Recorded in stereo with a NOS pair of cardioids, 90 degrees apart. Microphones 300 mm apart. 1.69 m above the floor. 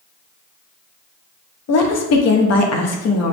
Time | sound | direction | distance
1.7 | a woman speaking | 60° left | 1.0 m